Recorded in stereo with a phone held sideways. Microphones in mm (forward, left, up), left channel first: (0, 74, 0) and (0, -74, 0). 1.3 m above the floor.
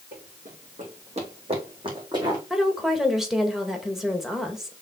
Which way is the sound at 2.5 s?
Centre (ahead or behind).